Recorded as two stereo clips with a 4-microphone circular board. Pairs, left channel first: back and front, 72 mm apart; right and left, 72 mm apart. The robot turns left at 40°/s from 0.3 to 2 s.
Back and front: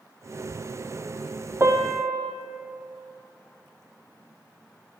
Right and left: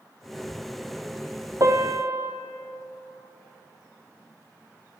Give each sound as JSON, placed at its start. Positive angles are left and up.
{"t": 1.6, "sound": "a piano", "azimuth_deg": 55, "distance_m": 0.6}